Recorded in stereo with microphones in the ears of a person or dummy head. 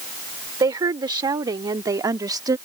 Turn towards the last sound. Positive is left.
turn(degrees=-25)  # may be behind; listen again after turning